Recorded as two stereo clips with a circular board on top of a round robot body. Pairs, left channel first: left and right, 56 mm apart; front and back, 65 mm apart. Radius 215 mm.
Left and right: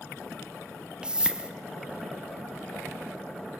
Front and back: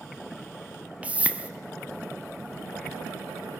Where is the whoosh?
140° right, 1.2 m.